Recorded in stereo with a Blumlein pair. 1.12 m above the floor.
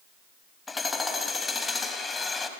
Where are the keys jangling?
No keys jangling in this recording.